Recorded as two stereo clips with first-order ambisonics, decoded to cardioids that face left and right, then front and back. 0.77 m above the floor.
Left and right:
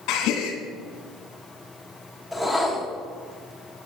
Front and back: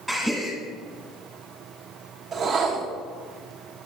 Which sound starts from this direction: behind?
A whoosh, at 2.3 s.